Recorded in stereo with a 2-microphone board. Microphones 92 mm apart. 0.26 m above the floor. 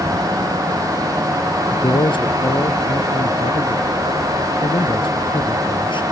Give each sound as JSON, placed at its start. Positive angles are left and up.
{"t": 1.7, "sound": "a man speaking", "side_deg": 70}